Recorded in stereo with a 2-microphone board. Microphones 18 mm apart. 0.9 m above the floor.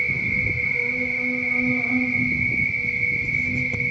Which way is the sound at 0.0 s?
40° right (ahead or behind).